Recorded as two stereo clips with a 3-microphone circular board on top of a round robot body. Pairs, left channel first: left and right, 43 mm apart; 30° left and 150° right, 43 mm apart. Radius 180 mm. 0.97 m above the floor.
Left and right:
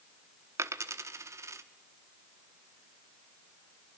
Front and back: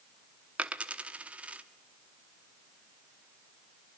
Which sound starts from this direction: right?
A dropped coin, at 0.6 s.